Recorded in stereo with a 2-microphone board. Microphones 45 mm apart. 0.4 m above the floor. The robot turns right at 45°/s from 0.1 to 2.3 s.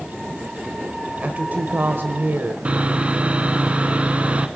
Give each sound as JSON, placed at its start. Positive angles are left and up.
{"t": 1.2, "sound": "a woman speaking", "azimuth_deg": -135, "distance_m": 1.2}
{"t": 2.6, "sound": "sawing", "side_deg": -30, "distance_m": 1.1}